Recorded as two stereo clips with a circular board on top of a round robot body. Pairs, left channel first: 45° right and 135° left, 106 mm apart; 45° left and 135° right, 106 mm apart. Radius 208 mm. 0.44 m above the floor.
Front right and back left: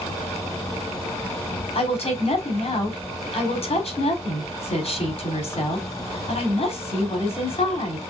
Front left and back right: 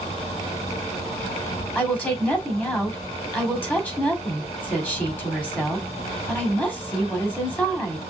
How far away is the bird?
I don't hear a bird.